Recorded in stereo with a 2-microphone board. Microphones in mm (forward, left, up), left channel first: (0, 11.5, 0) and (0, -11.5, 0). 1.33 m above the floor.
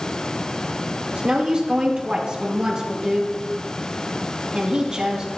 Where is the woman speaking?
40° right (ahead or behind), 2.5 m.